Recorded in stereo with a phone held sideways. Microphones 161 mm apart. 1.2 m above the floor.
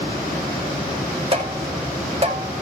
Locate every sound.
1.3 s tapping: 40° right (ahead or behind), 5 m